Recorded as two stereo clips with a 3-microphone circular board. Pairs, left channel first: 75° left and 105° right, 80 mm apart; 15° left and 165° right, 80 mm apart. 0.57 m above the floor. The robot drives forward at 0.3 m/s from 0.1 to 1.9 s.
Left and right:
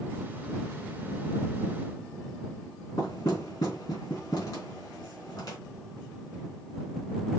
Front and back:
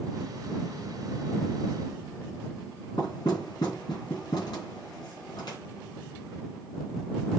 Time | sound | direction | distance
3.0 | knocking | 50° left | 3.5 m